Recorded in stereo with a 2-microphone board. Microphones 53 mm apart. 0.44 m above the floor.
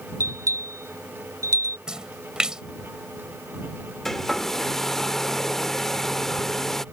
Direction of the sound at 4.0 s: 10° left (ahead or behind).